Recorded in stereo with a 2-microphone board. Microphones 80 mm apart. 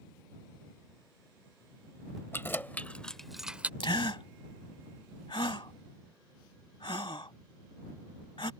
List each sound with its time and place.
2.3 s keys jangling: 30° left (ahead or behind); by 3.7 s 20° right (ahead or behind)
3.8 s a gasp: 80° left